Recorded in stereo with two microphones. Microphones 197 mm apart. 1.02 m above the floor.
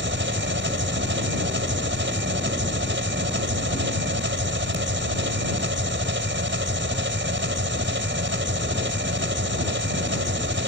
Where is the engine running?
70° right (ahead or behind).